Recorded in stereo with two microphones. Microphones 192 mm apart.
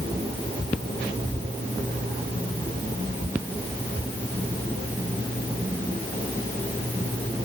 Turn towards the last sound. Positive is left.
No sound to turn to.